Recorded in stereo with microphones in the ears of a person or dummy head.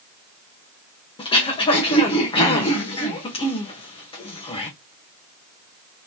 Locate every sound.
1.2 s throat clearing: 30° left (ahead or behind), 1.3 m